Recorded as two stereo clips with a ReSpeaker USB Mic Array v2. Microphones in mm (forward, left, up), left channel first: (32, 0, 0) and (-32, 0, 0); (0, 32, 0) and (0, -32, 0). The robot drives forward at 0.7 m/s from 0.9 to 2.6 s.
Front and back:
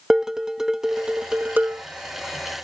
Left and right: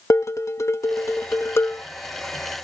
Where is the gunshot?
No gunshot in this recording.